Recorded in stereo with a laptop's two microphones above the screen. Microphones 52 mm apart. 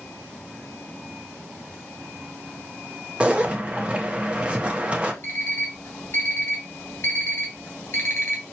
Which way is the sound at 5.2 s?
40° left (ahead or behind).